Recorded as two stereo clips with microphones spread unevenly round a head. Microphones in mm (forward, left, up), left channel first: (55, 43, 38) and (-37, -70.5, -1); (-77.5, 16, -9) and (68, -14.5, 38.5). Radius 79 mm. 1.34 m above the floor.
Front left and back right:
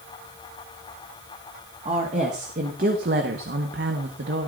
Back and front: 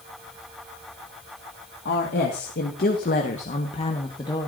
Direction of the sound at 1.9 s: 175° left.